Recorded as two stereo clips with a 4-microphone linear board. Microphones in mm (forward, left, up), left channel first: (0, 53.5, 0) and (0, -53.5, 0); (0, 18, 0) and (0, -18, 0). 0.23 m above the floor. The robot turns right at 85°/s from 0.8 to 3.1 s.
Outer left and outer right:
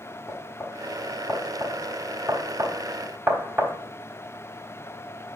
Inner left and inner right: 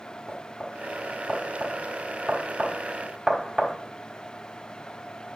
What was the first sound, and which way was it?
Knocking, 25° left (ahead or behind).